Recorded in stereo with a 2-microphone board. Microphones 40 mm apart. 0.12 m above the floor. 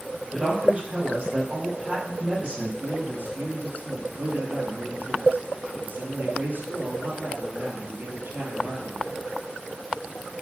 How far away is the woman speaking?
About 4.5 m.